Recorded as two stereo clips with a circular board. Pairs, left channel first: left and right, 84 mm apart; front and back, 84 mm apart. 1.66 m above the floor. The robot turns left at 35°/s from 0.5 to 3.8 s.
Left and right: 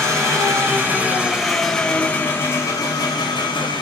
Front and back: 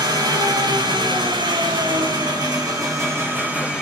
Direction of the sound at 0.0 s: 145° right.